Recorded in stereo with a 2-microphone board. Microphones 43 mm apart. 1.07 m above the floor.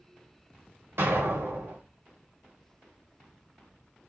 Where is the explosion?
65° right (ahead or behind), 1.6 m.